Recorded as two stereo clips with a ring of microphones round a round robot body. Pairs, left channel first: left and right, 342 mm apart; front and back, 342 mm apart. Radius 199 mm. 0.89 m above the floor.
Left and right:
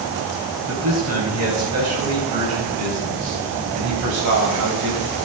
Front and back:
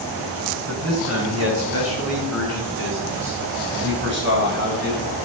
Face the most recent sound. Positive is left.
turn(degrees=-120)